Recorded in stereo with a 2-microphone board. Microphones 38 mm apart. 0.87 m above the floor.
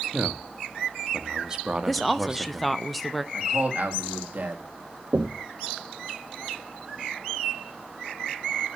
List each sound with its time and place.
0.1 s a man speaking: 20° right (ahead or behind), 0.9 m
1.9 s a woman speaking: centre (ahead or behind), 0.6 m
3.3 s a man speaking: 50° right (ahead or behind), 2.0 m
5.1 s knocking: 50° right (ahead or behind), 1.1 m